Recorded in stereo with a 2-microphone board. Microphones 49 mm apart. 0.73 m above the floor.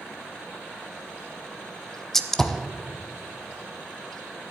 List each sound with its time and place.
2.1 s a gunshot: 10° left (ahead or behind), 0.8 m